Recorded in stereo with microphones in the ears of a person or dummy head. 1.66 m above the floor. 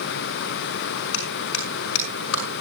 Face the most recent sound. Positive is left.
turn(degrees=75)  # may be behind; listen again after turning